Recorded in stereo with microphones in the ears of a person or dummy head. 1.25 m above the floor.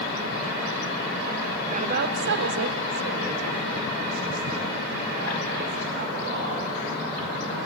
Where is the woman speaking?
35° right (ahead or behind), 1.1 m; by 6.7 s 60° right (ahead or behind), 4 m.